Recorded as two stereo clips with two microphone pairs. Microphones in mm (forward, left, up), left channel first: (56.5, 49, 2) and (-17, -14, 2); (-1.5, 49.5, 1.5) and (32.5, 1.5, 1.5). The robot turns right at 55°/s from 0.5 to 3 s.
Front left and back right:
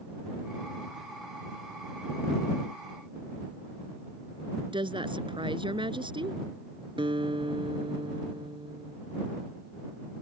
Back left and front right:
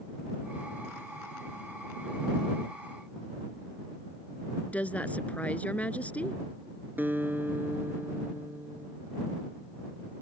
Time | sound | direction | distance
4.7 | a woman speaking | 170° right | ?
7.0 | a guitar | 110° right | ?